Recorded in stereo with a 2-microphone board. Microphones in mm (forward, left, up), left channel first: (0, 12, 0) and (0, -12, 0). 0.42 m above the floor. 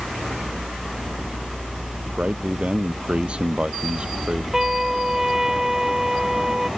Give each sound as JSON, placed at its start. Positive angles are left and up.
{"t": 2.2, "sound": "a man speaking", "side_deg": -55}
{"t": 4.5, "sound": "a trumpet", "side_deg": -20}